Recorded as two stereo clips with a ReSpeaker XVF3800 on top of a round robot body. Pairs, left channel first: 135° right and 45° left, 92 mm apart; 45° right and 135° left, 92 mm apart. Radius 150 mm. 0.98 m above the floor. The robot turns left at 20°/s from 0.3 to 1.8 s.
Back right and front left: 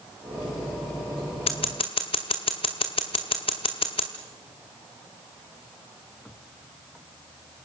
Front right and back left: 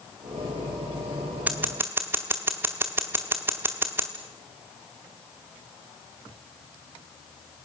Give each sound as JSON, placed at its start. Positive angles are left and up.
{"t": 1.5, "sound": "scissors", "azimuth_deg": -150, "distance_m": 0.8}